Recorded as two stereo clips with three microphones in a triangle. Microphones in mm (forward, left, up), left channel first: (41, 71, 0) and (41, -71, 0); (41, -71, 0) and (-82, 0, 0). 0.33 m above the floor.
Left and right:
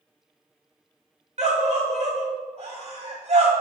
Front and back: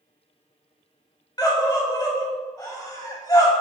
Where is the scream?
85° right, 2 m.